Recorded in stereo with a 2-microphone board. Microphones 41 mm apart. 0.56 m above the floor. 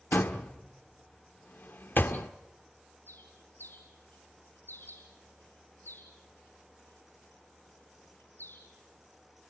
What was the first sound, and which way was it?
A door slam, 55° left (ahead or behind).